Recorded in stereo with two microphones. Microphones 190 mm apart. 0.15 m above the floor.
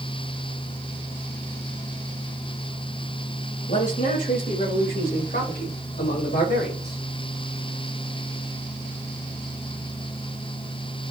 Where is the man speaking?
40° left (ahead or behind), 4.5 m; by 7.0 s 60° left (ahead or behind), 6.5 m.